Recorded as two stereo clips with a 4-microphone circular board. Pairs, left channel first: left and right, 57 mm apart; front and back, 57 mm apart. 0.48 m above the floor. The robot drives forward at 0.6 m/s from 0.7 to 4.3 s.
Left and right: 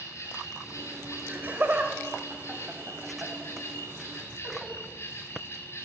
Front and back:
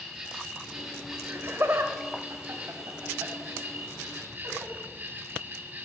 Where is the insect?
105° left, 3.5 m; by 5.9 s 130° left, 4.5 m.